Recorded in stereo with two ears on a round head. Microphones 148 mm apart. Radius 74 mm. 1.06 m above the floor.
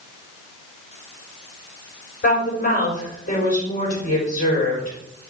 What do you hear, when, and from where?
2.2 s a woman speaking: 55° left (ahead or behind), 5 m